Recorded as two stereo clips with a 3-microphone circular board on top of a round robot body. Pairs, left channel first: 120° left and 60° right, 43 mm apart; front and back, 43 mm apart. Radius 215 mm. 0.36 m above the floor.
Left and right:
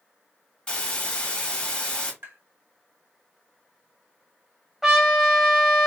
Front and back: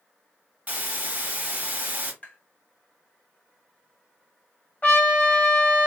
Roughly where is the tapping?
Ahead right.